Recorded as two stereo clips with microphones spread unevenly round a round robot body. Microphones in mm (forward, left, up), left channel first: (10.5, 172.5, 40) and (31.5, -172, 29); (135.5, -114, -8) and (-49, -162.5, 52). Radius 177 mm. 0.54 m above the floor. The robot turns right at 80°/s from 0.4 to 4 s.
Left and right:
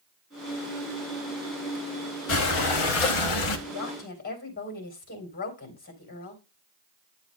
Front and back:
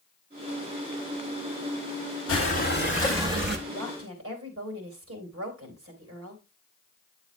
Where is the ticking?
No ticking in this recording.